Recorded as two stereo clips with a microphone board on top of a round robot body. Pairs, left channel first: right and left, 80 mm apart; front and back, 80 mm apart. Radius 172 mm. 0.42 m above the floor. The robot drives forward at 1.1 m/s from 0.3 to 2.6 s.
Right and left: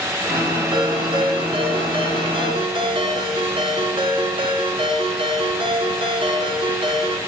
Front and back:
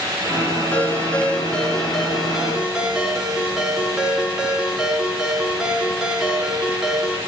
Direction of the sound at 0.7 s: 70° left.